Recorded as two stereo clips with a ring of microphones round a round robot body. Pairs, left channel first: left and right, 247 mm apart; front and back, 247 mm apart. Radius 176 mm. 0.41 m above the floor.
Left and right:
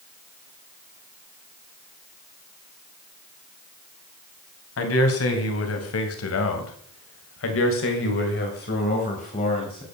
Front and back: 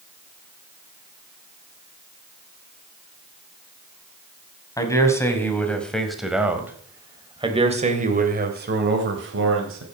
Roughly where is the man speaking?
Left.